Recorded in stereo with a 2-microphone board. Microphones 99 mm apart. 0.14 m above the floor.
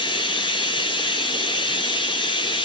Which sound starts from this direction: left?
Running water, at 0.0 s.